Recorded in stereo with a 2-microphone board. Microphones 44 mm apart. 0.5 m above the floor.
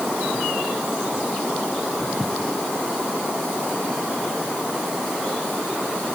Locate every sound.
Only background noise.